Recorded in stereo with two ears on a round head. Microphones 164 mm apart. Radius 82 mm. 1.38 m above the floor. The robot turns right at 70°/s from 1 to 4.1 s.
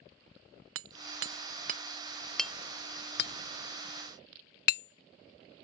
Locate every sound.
0.8 s hammering: 80° right; by 5.6 s 60° left (ahead or behind)